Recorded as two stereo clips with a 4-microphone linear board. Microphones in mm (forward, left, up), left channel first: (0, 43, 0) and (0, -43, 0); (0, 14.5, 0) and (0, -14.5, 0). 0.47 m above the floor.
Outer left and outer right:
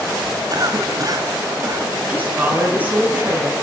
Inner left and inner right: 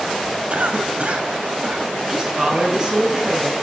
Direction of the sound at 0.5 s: 50° right (ahead or behind).